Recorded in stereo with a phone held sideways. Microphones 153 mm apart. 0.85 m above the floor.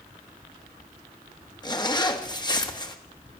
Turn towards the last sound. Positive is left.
turn(degrees=25)  # may be behind; listen again after turning